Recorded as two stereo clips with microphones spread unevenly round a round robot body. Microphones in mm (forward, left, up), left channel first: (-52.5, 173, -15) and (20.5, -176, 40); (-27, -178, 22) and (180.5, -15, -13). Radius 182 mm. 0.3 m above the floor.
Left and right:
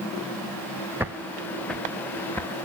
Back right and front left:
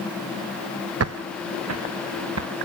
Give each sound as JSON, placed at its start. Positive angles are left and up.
{"t": 1.0, "sound": "footsteps", "azimuth_deg": 5, "distance_m": 0.8}